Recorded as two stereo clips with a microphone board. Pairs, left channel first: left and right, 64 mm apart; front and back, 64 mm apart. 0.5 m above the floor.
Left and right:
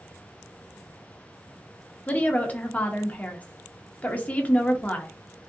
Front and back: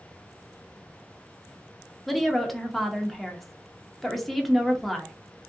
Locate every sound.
2.1 s a woman speaking: 85° left, 0.8 m